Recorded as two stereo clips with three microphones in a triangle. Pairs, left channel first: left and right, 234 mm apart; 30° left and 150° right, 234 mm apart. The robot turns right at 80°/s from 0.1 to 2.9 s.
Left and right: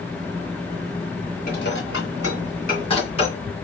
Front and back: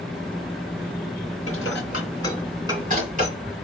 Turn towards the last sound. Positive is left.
turn(degrees=155)